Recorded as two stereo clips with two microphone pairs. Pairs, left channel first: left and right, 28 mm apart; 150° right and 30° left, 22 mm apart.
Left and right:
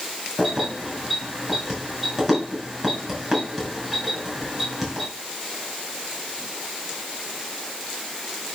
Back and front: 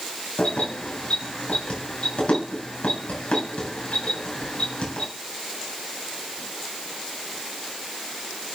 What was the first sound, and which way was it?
Keys jangling, 170° right.